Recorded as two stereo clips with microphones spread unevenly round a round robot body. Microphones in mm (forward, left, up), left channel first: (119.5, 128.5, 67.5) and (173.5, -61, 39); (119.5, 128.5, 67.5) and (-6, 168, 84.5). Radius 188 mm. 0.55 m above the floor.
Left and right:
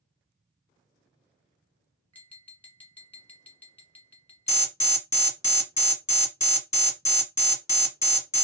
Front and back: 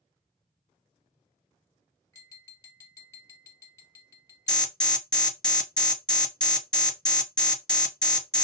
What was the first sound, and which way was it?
Tapping, 15° left.